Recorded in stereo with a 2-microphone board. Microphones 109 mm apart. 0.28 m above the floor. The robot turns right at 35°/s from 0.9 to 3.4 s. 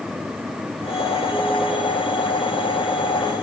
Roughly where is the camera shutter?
I don't hear a camera shutter.